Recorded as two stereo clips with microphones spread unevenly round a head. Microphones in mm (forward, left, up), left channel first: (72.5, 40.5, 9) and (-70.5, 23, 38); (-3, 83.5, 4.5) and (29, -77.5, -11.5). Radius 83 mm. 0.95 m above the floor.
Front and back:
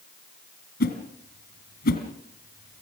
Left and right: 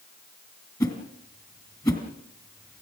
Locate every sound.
0.8 s a whoosh: 35° left, 3 m